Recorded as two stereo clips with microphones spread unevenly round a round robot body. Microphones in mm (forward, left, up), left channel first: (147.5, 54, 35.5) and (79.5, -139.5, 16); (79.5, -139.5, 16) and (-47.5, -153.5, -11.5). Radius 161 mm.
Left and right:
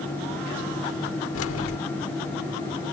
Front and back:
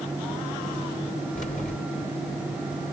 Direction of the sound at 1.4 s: 75° left.